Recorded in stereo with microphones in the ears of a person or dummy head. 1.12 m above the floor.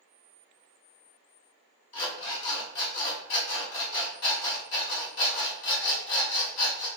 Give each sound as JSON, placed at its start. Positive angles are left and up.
{"t": 1.9, "sound": "an alarm clock", "side_deg": 70, "distance_m": 1.7}